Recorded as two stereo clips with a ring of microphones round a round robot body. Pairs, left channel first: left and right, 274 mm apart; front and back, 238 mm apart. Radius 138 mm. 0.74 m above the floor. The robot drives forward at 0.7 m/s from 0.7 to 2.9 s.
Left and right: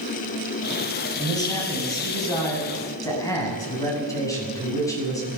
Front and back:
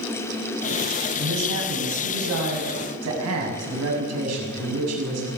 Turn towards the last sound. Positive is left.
turn(degrees=170)